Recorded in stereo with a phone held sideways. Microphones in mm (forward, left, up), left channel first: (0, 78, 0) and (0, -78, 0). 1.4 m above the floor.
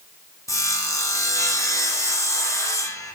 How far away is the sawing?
About 0.5 m.